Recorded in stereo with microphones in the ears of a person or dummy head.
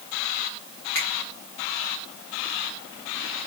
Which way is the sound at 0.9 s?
10° left (ahead or behind).